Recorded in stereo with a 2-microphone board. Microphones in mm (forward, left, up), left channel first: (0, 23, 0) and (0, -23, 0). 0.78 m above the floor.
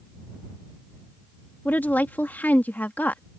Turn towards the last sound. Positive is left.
turn(degrees=40)  # may be behind; listen again after turning